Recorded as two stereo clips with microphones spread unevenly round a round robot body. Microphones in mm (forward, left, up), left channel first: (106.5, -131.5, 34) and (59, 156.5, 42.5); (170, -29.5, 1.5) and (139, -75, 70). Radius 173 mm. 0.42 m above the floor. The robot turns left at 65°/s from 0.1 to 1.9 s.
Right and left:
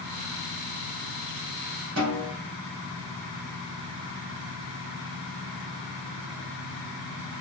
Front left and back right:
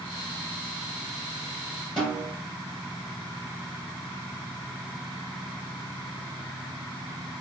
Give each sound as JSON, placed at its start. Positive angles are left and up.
{"t": 2.0, "sound": "a snare drum", "azimuth_deg": 85, "distance_m": 1.9}